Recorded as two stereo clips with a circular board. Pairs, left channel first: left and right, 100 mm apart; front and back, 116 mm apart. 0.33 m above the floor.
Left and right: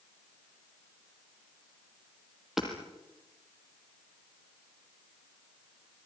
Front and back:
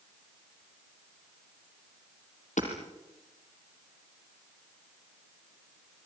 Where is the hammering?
5° right, 4.5 m.